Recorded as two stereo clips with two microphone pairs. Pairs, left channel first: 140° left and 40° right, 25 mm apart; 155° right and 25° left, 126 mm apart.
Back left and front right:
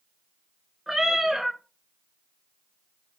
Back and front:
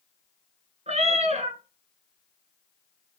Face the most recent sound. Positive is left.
turn(degrees=40)